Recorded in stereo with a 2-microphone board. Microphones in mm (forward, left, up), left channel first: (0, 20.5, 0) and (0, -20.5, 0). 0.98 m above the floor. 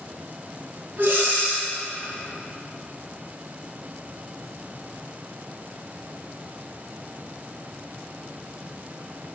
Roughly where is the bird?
I don't hear a bird.